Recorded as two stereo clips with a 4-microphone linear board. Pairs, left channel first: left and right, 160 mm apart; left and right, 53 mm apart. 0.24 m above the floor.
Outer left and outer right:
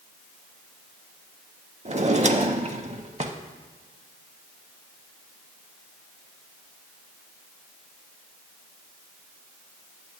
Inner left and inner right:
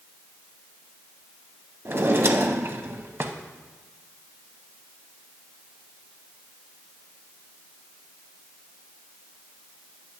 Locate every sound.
1.9 s a drawer: 45° right (ahead or behind), 0.6 m